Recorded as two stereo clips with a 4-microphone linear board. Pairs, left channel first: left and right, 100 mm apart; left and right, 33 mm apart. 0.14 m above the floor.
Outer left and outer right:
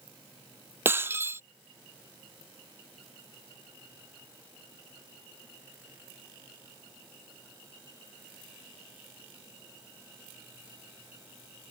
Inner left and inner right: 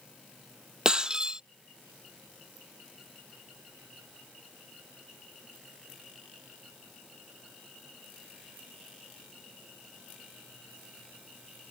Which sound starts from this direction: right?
Breaking glass, at 0.8 s.